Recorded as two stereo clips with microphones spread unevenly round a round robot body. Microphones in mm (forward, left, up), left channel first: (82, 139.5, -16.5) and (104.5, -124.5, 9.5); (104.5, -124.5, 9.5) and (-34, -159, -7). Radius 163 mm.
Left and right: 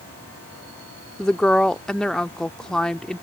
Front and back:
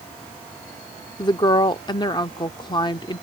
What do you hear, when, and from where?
1.2 s a woman speaking: 25° left